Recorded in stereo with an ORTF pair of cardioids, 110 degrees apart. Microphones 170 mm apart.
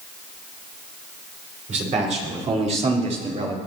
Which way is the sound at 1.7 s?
45° right.